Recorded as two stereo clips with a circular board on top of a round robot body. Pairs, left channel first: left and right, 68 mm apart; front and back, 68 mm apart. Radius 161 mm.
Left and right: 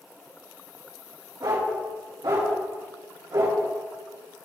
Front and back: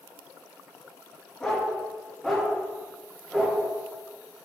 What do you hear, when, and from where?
1.4 s a dog barking: 80° right, 4 m; by 3.6 s 95° right, 6 m